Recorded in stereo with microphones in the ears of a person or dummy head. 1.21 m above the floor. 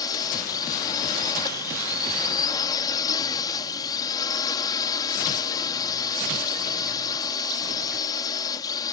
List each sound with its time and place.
0.0 s a drone: 15° left (ahead or behind)